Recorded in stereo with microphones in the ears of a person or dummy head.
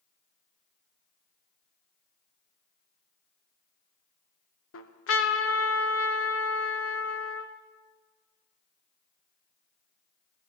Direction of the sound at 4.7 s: 65° left (ahead or behind).